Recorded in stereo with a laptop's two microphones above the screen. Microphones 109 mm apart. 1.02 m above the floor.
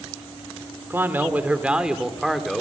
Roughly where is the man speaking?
Right.